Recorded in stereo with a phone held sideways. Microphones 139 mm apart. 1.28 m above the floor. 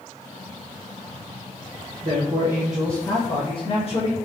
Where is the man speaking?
55° right (ahead or behind), 0.8 m; by 4.1 s 50° left (ahead or behind), 1.5 m.